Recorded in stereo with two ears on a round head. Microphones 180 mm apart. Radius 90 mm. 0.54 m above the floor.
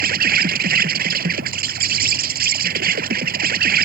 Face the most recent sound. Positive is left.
turn(degrees=-50)  # may be behind; listen again after turning